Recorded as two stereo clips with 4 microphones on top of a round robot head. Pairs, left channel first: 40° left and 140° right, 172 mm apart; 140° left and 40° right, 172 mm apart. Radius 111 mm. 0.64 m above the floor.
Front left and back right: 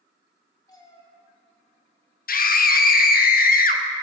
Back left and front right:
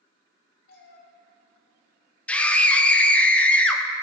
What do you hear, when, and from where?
0.7 s a cat meowing: 110° left, 1.7 m
2.3 s a scream: 60° left, 1.0 m